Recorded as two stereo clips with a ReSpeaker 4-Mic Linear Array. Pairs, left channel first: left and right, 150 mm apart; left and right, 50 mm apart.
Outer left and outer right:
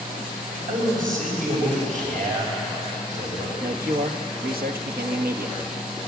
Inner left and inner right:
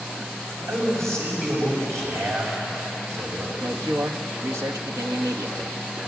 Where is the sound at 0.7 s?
65° right (ahead or behind), 7 m.